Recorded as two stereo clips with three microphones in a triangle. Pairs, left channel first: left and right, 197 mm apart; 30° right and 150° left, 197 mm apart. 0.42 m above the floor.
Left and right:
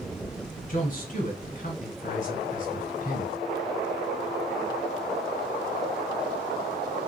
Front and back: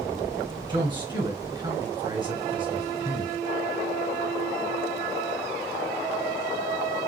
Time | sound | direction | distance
0.7 | a man speaking | 95° left | 1.6 m